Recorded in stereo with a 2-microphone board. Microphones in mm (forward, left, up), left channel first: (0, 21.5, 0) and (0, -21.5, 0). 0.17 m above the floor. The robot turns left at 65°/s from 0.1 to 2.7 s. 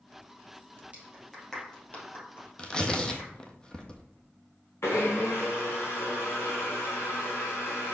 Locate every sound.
0.9 s a clap: 35° right (ahead or behind), 3.5 m; by 3.3 s 70° left (ahead or behind), 3.5 m
2.6 s tearing paper: 30° left (ahead or behind), 1.1 m; by 4.0 s 20° left (ahead or behind), 1.1 m
4.8 s a blender: 85° left, 2.5 m